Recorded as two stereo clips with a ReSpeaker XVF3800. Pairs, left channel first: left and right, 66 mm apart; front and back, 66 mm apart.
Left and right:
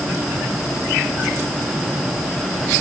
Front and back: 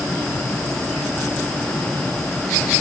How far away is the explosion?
I don't hear an explosion.